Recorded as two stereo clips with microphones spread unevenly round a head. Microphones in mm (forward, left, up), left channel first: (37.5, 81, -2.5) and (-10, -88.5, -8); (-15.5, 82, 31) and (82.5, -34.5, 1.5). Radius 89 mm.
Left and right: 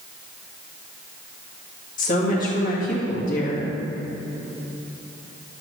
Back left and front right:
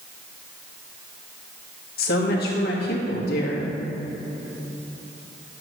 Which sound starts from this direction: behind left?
A woman speaking, at 2.0 s.